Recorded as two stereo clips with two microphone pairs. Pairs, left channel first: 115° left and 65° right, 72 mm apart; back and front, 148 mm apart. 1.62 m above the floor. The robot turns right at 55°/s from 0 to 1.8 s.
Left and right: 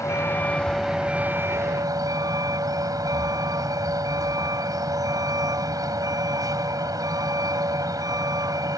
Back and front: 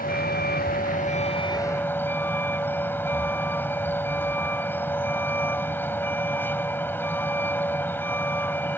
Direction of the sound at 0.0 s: 155° left.